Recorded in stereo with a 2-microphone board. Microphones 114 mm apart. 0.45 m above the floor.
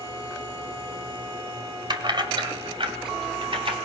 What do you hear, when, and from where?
1.9 s keys jangling: 45° right (ahead or behind), 1.5 m; by 3.8 s 55° right (ahead or behind), 3 m